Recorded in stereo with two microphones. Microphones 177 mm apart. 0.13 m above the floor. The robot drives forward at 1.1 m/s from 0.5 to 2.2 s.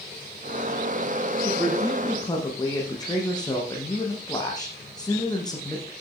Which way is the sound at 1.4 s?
20° left (ahead or behind).